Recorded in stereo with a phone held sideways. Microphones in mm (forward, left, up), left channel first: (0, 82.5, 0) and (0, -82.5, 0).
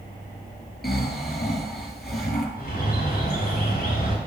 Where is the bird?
70° left (ahead or behind), 3.5 m.